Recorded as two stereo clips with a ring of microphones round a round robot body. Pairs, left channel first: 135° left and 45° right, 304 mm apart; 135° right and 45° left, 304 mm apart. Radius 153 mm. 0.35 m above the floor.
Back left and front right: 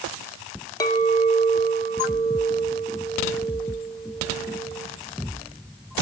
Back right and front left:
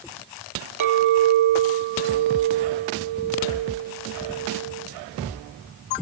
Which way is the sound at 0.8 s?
55° left.